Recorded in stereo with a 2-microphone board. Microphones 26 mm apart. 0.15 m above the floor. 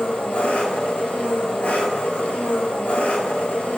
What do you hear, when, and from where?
0.0 s an engine running: 65° left (ahead or behind), 0.9 m